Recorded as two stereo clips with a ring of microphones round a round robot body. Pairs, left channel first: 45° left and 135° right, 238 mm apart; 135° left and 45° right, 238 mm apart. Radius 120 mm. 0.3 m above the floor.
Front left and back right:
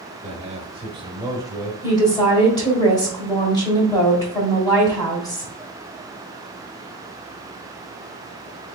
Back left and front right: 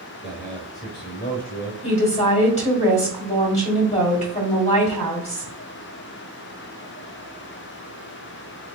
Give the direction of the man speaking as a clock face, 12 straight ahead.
4 o'clock.